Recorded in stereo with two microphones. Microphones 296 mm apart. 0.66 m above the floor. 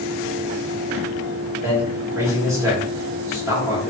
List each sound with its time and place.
1.6 s a man speaking: 10° right (ahead or behind), 1.7 m